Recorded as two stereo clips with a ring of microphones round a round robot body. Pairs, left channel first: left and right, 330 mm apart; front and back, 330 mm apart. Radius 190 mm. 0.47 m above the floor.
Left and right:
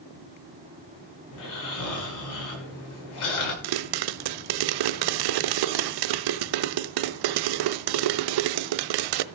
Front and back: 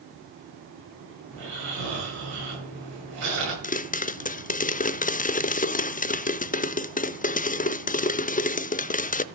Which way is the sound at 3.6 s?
70° right.